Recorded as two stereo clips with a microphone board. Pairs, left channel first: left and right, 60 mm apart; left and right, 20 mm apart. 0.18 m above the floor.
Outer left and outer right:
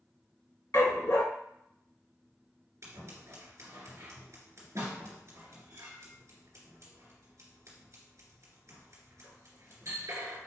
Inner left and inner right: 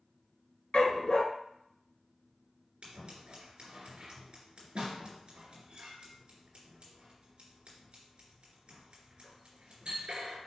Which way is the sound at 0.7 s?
65° left (ahead or behind).